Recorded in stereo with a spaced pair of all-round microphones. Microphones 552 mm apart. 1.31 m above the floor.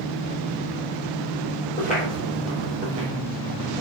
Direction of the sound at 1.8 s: 15° left (ahead or behind).